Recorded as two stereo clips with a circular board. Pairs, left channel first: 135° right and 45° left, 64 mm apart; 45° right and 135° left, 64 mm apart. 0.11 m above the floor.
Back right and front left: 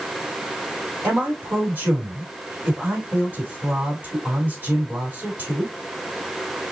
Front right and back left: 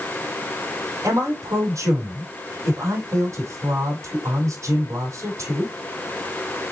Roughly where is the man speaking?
Left.